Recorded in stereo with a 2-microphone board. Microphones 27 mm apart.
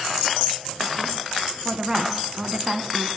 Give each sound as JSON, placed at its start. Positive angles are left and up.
{"t": 1.6, "sound": "a woman speaking", "side_deg": -5, "distance_m": 1.9}